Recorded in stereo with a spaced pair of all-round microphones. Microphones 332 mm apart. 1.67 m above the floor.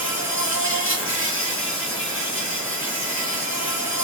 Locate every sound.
0.0 s an insect: 40° left (ahead or behind), 2.5 m